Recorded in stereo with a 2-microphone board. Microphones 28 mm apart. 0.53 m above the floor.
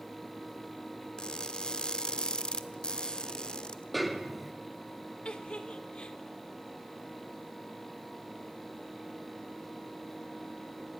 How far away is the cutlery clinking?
No cutlery clinking in this recording.